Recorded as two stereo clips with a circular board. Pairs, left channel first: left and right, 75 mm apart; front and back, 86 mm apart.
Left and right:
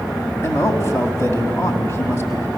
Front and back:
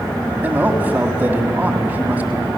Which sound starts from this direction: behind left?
A man speaking, at 0.4 s.